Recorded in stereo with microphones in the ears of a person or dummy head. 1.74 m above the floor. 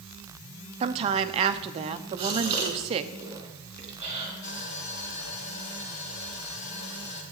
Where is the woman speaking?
30° right (ahead or behind), 0.7 m.